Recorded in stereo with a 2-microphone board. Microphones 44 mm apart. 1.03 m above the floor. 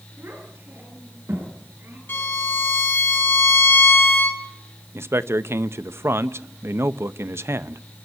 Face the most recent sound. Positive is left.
turn(degrees=-70)  # may be behind; listen again after turning